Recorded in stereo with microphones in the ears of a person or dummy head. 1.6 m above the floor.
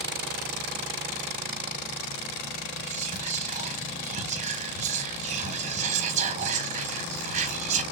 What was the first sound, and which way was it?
Whispering, 40° right (ahead or behind).